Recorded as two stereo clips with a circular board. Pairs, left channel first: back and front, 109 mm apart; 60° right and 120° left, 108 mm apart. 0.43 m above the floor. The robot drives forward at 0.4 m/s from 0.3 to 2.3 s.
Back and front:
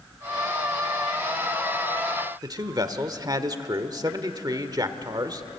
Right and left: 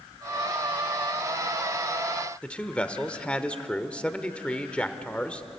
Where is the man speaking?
15° left, 1.2 m.